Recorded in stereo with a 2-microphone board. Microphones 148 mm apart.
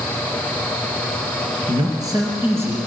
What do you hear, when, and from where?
1.7 s a man speaking: 30° right (ahead or behind), 2.5 m; by 2.8 s 15° right (ahead or behind), 3 m